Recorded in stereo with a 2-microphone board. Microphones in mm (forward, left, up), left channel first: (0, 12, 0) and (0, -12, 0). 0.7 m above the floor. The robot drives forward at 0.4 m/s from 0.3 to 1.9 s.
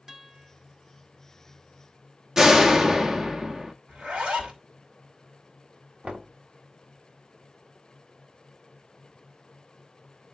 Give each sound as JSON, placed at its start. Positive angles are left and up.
{"t": 0.1, "sound": "a guitar", "side_deg": -20, "distance_m": 1.3}
{"t": 2.4, "sound": "a door slam", "side_deg": -20, "distance_m": 0.8}
{"t": 3.9, "sound": "a zipper", "side_deg": -55, "distance_m": 2.5}
{"t": 6.0, "sound": "knocking", "side_deg": -55, "distance_m": 1.5}